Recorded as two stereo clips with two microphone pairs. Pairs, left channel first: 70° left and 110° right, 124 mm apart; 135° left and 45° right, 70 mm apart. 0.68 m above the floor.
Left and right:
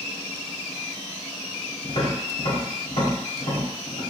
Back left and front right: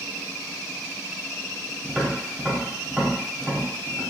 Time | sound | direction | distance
1.8 | tapping | 50° left | 1.5 m